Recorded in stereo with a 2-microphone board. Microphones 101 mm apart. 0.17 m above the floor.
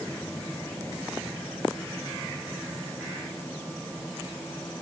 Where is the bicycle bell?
I don't hear a bicycle bell.